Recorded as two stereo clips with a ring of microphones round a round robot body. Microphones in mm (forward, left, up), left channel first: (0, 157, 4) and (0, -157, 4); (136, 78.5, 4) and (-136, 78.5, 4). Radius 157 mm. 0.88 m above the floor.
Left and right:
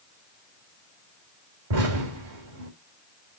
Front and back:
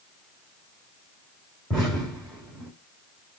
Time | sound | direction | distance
1.7 | an explosion | 90° right | 3.5 m